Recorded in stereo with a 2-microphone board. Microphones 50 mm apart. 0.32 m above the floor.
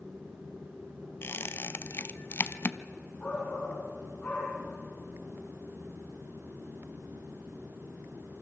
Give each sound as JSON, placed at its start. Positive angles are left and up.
{"t": 1.2, "sound": "a squeak", "side_deg": 50, "distance_m": 0.6}
{"t": 3.2, "sound": "a shout", "side_deg": 35, "distance_m": 4.0}